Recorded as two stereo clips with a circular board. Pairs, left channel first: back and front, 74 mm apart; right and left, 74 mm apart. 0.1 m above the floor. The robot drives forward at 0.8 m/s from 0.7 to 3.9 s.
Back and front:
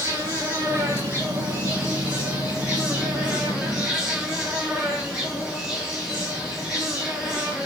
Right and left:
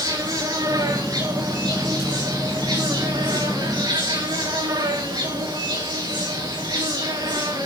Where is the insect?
60° left, 7.5 m; by 7.7 s 80° left, 7 m.